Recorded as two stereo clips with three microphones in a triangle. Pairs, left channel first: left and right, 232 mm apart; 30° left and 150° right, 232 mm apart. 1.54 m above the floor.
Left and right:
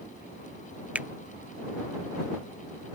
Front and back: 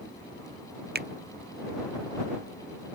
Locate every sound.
0.9 s a finger snap: 175° right